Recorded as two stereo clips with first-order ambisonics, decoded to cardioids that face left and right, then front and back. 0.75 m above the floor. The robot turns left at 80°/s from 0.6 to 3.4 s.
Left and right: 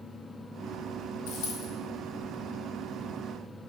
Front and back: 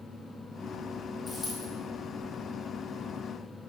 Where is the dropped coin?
95° left, 2 m; by 1.7 s 60° left, 2 m.